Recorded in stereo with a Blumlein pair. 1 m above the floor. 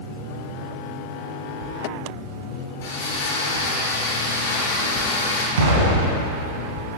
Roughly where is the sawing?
Ahead left.